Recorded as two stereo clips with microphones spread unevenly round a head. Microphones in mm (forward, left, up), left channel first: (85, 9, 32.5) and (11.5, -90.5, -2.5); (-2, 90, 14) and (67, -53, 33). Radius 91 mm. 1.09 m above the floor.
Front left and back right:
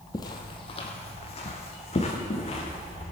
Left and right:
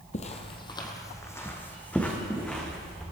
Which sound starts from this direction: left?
Footsteps, at 0.1 s.